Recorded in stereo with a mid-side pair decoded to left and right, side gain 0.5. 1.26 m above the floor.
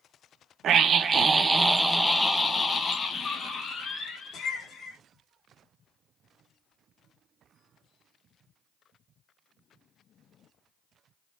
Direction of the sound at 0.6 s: 60° right.